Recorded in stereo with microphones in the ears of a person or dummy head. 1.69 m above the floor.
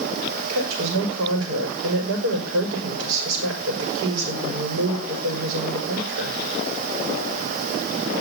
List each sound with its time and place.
0.5 s a woman speaking: 75° right (ahead or behind), 5 m